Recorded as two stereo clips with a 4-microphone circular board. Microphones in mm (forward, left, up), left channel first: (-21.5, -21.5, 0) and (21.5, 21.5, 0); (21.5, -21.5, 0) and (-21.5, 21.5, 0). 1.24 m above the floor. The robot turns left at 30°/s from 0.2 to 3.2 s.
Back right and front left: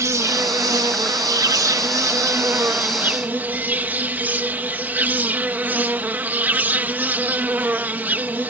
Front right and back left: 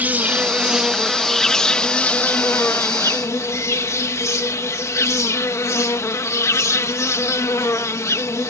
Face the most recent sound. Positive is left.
turn(degrees=-15)